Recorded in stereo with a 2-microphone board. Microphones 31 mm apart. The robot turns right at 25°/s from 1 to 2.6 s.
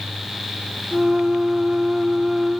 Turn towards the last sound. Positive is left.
No sound to turn to.